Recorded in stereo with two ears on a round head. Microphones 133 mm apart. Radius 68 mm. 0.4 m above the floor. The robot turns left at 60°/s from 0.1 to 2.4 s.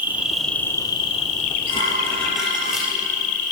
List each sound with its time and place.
0.0 s an insect: 165° right, 1.2 m; by 3.5 s 60° left, 1.2 m
1.7 s dishes clattering: 40° left, 5 m; by 2.9 s 5° right, 5 m